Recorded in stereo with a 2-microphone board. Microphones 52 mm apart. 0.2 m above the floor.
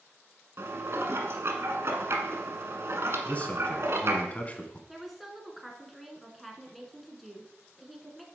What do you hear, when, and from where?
0.6 s dishes clattering: 60° right (ahead or behind), 1.2 m
3.2 s a man speaking: 30° left (ahead or behind), 1.4 m
4.9 s a woman speaking: centre (ahead or behind), 1.8 m